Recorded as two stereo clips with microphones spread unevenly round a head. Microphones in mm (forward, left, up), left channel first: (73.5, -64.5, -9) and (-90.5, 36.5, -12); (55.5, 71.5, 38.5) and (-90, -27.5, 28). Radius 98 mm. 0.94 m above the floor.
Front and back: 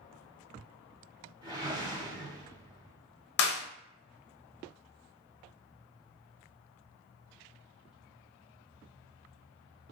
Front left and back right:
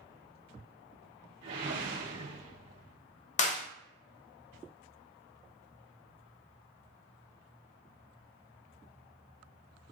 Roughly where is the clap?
Ahead.